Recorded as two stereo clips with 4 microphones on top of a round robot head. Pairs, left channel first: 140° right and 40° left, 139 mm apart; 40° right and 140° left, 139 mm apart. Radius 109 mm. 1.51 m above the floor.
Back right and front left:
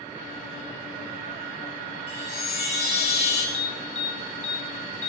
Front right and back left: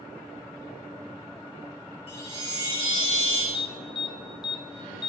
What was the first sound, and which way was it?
A chime, 90° right.